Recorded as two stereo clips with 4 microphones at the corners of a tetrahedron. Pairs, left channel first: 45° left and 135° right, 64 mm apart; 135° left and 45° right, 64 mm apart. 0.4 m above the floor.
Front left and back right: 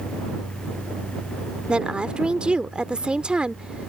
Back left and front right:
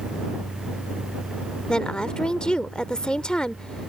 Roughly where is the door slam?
No door slam in this recording.